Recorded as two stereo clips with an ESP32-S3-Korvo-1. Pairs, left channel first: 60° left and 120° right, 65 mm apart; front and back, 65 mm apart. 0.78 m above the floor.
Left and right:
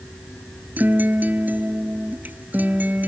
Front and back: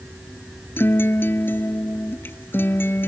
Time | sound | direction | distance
0.8 | a guitar | 55° right | ?